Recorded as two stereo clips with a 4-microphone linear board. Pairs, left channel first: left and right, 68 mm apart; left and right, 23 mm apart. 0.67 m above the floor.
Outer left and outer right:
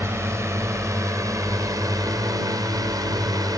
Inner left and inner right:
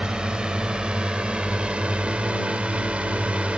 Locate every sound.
0.0 s a drone: 40° right (ahead or behind); by 3.6 s 65° right (ahead or behind)